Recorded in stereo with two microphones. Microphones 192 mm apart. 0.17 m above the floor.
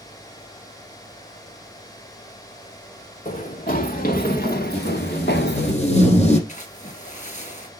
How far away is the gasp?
I don't hear a gasp.